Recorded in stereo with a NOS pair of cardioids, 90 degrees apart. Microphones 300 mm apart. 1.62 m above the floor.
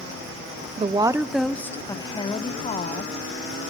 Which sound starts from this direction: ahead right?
A woman speaking, at 0.8 s.